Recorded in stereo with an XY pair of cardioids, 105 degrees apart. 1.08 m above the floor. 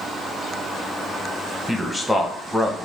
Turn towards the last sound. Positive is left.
turn(degrees=5)